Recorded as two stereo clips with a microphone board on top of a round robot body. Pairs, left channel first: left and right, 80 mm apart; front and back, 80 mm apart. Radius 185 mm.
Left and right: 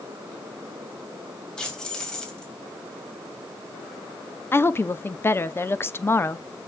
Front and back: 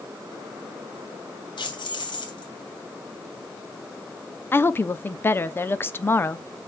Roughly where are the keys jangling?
Ahead.